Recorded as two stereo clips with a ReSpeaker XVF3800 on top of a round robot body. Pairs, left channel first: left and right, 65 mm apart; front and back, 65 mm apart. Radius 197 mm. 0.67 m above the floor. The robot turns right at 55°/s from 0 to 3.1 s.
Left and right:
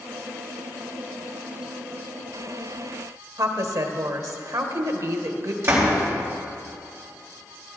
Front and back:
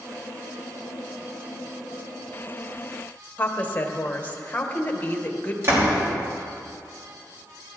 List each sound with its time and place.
3.4 s a woman speaking: 65° right, 1.3 m
5.6 s a door slam: 135° right, 3 m